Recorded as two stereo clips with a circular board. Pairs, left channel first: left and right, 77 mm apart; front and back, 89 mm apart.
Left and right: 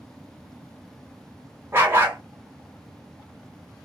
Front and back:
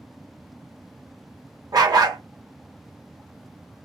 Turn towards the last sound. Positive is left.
turn(degrees=-145)